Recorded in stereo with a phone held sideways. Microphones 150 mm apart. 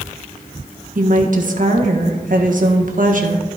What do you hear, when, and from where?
0.9 s a woman speaking: 65° right (ahead or behind), 1.3 m